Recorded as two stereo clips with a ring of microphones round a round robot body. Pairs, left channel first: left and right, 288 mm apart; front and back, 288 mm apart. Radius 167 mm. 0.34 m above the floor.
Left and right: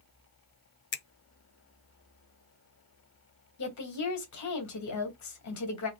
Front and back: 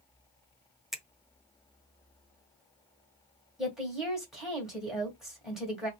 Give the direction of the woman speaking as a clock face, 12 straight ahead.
9 o'clock.